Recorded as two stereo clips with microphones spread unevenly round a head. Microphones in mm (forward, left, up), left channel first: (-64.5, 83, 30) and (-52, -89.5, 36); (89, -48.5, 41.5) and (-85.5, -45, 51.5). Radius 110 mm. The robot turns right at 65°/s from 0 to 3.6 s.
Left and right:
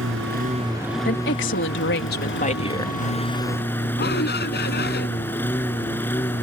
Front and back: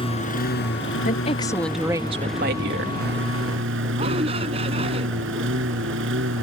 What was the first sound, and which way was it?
A lawn mower, 60° right.